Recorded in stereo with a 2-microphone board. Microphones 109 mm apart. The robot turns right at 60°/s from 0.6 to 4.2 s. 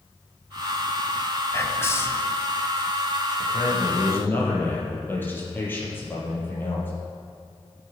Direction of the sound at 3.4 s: 115° left.